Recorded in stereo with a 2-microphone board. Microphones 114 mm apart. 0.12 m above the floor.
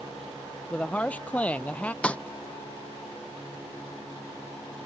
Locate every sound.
0.7 s a woman speaking: 10° left (ahead or behind)
2.0 s a snare drum: 10° left (ahead or behind)